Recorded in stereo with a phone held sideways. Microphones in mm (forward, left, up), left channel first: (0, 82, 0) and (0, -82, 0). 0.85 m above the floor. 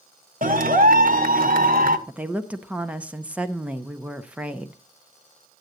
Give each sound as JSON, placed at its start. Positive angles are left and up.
{"t": 0.4, "sound": "a clap", "side_deg": -60, "distance_m": 0.9}
{"t": 2.1, "sound": "a woman speaking", "side_deg": -10, "distance_m": 0.7}